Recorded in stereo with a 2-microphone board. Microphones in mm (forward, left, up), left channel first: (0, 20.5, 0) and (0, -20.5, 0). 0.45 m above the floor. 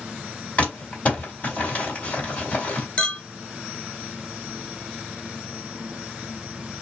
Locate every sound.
0.6 s crumpling: 40° left (ahead or behind), 2 m
3.0 s a clink: 35° left (ahead or behind), 0.7 m